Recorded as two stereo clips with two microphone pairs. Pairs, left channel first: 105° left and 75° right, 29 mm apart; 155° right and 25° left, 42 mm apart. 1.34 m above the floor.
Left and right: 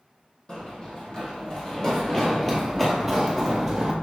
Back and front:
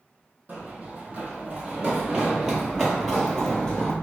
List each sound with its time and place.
0.5 s running footsteps: 65° left, 1.9 m; by 3.9 s 125° right, 1.4 m